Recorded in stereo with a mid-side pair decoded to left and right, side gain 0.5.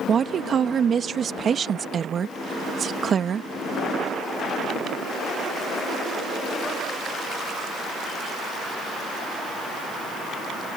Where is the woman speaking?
45° right.